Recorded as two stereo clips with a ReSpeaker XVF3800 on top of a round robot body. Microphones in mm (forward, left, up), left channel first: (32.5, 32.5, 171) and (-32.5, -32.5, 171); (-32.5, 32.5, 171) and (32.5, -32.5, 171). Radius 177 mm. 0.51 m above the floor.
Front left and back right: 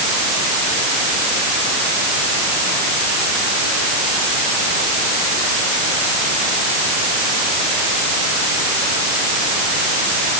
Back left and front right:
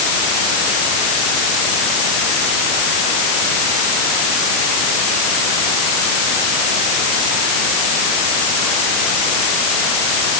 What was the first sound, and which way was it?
Only background noise.